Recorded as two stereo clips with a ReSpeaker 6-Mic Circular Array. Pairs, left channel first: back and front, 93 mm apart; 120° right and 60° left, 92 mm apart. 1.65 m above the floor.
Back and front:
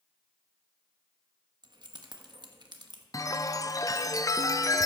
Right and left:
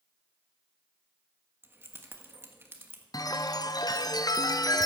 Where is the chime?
145° right, 0.6 m.